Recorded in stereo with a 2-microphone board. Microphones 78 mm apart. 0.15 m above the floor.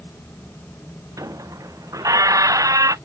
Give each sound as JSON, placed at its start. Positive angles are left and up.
{"t": 1.2, "sound": "a squeak", "side_deg": -45}